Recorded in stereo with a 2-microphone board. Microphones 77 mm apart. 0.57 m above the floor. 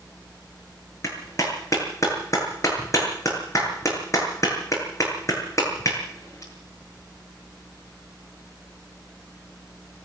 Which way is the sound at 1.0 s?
40° left (ahead or behind).